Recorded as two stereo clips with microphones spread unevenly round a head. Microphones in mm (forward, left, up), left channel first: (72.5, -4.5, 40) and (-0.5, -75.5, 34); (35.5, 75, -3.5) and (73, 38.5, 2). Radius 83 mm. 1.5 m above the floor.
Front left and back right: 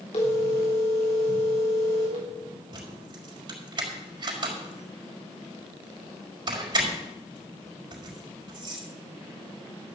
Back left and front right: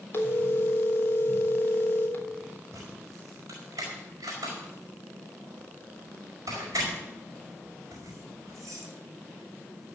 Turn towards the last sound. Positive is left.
turn(degrees=-95)